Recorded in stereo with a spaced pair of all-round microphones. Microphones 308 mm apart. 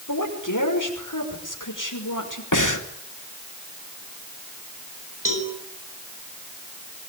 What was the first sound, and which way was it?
A woman speaking, 80° left.